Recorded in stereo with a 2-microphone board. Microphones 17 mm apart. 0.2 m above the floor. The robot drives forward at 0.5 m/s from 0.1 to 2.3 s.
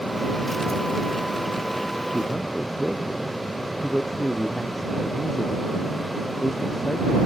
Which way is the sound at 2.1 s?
Centre (ahead or behind).